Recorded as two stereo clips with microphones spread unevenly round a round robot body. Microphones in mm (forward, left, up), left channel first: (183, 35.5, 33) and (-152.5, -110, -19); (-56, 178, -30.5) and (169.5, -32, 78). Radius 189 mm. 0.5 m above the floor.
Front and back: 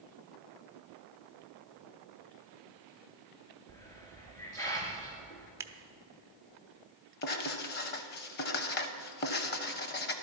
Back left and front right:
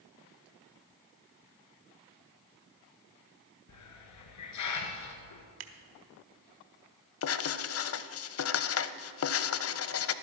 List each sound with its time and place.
3.7 s a hiss: 105° left, 1.6 m
5.6 s scissors: 80° right, 0.8 m
7.2 s writing: 85° left, 0.6 m